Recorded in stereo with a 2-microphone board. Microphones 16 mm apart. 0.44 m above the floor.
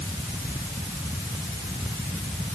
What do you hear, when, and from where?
Only background noise.